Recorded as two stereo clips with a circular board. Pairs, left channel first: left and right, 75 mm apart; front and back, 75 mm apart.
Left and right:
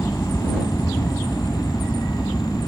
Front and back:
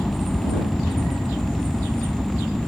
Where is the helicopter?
65° left; by 2.7 s 80° left.